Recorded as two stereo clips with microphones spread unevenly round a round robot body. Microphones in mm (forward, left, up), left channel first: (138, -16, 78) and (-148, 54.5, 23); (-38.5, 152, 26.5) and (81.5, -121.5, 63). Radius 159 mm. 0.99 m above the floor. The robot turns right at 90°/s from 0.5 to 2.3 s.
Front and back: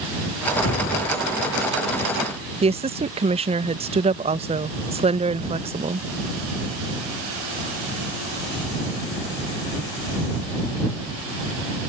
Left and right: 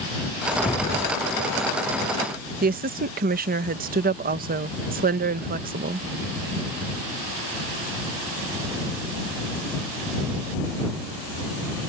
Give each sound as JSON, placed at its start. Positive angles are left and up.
{"t": 0.5, "sound": "a whoosh", "azimuth_deg": 20}
{"t": 2.6, "sound": "a woman speaking", "azimuth_deg": -130}